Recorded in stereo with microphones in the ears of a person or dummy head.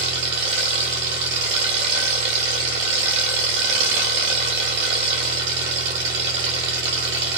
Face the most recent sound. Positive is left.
turn(degrees=-65)  # may be behind; listen again after turning